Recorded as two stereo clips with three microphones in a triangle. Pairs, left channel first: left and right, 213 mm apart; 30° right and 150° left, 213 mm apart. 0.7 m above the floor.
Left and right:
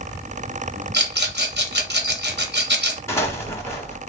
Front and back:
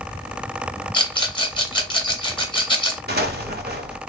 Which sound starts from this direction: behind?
An explosion, at 3.1 s.